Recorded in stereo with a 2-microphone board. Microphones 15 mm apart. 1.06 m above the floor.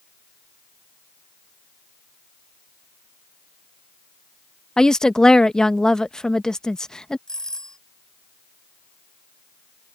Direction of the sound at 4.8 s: 55° left (ahead or behind).